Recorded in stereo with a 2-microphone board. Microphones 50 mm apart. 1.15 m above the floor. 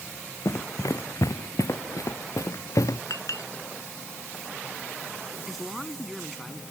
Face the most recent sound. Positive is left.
turn(degrees=0)  # may be behind; listen again after turning